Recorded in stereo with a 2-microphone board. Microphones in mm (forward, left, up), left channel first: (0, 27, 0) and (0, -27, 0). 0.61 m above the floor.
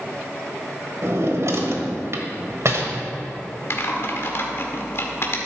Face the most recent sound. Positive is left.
turn(degrees=50)  # may be behind; listen again after turning